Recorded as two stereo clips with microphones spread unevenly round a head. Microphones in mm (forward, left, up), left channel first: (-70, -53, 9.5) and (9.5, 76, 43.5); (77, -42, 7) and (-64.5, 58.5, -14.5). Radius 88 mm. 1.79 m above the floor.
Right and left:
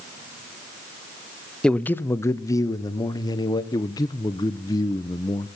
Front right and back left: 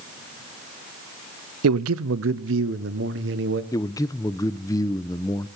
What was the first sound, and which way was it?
A man speaking, 150° left.